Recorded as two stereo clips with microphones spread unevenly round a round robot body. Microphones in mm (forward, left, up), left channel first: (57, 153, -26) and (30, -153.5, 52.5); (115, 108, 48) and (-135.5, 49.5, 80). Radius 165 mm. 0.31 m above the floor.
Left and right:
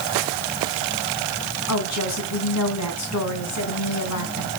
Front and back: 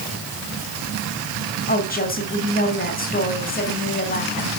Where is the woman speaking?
65° left, 3 m.